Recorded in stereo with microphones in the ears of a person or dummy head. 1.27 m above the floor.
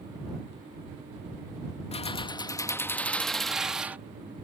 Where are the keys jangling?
35° left (ahead or behind); by 4.0 s 5° right (ahead or behind).